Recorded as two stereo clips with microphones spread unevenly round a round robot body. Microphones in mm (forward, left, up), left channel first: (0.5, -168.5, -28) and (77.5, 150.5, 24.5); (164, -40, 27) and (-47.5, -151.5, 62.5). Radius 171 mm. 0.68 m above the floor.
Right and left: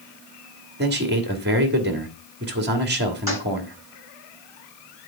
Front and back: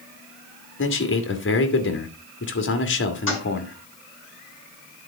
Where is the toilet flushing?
5° right, 7 m.